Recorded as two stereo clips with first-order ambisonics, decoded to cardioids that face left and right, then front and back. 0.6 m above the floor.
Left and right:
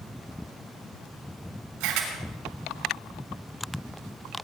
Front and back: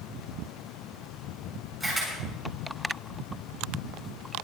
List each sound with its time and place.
1.8 s a camera shutter: 110° right, 6.5 m